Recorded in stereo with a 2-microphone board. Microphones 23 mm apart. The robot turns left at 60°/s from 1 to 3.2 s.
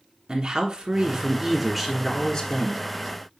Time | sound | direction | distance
0.3 | a man speaking | 135° right | 1.6 m